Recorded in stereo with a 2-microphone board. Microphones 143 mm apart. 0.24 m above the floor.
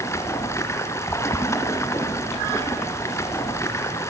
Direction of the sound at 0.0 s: 20° left (ahead or behind).